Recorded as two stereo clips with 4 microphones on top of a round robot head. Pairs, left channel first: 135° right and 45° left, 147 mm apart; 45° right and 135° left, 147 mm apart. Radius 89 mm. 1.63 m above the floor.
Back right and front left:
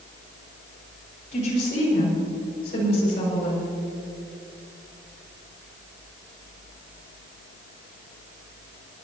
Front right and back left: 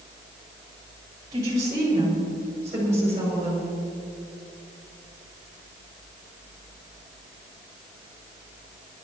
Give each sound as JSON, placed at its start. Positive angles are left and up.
{"t": 1.3, "sound": "a woman speaking", "azimuth_deg": -160, "distance_m": 5.5}